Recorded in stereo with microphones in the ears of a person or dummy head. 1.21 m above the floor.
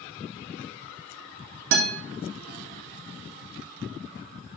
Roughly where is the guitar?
Right.